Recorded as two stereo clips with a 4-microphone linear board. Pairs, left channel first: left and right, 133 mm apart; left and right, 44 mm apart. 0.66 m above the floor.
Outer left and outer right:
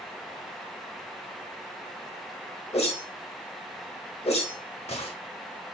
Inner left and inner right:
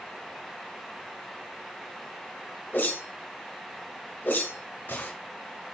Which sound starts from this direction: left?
A whoosh, at 2.7 s.